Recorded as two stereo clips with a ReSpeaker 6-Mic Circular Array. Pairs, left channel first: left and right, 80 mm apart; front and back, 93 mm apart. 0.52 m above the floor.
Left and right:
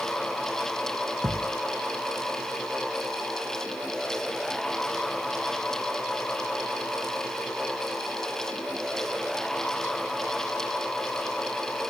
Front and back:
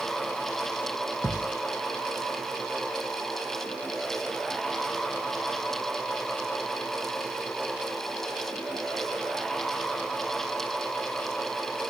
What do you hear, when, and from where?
1.2 s a thud: 75° right